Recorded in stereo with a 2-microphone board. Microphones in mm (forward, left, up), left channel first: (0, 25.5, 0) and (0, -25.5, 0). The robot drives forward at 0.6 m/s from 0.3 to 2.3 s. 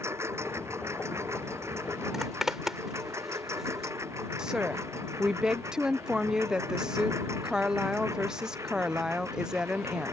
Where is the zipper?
5° right (ahead or behind).